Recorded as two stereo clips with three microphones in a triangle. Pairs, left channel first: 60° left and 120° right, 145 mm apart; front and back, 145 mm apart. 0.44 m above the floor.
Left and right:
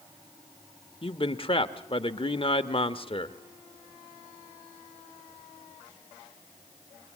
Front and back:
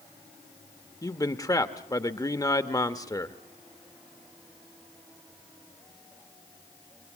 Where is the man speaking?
50° left, 1.0 m.